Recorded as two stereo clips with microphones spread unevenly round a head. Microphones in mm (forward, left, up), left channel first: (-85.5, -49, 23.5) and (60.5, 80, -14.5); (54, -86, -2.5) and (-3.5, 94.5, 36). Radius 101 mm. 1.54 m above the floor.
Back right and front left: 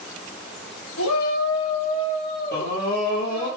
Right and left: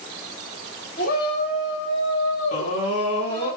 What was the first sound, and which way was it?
A shout, 120° right.